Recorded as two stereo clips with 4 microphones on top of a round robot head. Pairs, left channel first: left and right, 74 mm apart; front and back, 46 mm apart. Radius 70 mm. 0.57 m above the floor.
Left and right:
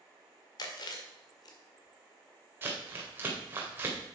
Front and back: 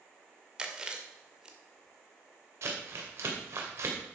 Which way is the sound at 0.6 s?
110° left.